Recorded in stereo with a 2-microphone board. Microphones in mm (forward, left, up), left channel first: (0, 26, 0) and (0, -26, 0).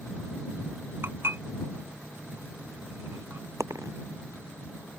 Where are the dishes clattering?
50° right (ahead or behind).